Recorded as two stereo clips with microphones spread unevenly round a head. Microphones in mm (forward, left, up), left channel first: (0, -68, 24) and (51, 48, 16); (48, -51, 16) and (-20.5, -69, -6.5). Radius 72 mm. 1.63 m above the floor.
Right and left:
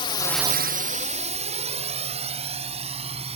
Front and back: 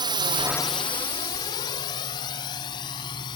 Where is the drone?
170° right; by 3.4 s 25° left.